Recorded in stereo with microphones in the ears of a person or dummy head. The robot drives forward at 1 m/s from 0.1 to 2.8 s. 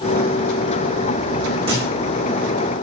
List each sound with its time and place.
1.7 s a thud: 35° right (ahead or behind), 6.5 m